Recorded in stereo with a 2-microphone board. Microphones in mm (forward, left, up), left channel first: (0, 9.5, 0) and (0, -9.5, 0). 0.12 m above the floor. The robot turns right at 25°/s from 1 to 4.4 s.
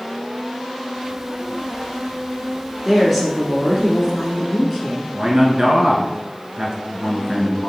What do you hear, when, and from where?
2.9 s a woman speaking: centre (ahead or behind), 1.2 m; by 5.0 s 15° left (ahead or behind), 1.2 m
5.1 s a man speaking: 30° right (ahead or behind), 1.3 m